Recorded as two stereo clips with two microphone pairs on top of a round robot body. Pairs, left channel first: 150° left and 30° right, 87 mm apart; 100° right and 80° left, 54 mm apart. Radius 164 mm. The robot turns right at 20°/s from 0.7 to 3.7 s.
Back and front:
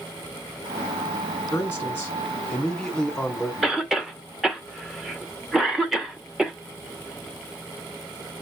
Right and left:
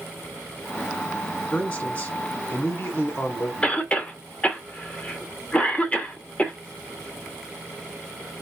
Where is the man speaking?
160° right, 2 m; by 3.5 s 120° right, 2 m.